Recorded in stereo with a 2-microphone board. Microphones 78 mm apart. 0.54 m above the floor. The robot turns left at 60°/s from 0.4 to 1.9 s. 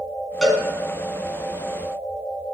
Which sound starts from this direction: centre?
A cowbell, at 0.4 s.